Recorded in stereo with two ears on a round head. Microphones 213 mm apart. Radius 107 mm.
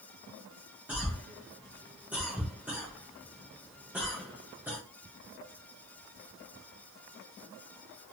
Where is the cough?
5° right (ahead or behind), 0.7 m.